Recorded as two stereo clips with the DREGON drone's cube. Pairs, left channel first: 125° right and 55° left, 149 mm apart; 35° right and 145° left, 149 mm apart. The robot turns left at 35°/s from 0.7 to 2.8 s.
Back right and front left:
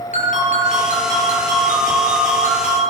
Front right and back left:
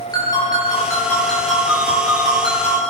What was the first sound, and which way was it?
A ringtone, 95° right.